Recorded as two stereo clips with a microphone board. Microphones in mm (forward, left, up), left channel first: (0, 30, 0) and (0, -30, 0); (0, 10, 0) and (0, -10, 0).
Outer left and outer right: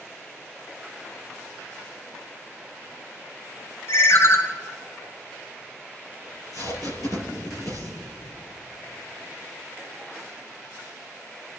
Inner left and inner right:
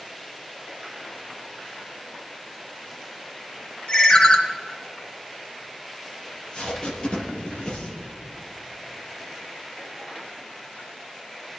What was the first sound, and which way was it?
A ringtone, 45° left (ahead or behind).